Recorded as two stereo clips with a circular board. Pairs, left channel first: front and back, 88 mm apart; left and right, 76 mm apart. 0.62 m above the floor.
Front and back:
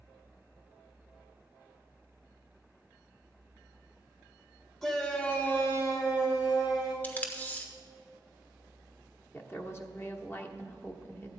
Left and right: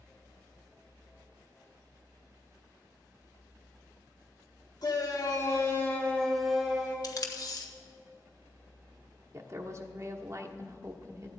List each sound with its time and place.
4.8 s a shout: 80° left, 2.5 m; by 6.9 s 20° right, 2 m
7.0 s tape being pulled: 65° left, 1.2 m
9.3 s a woman speaking: 55° right, 1.2 m